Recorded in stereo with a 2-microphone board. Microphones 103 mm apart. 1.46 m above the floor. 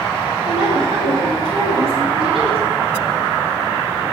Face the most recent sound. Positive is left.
turn(degrees=-85)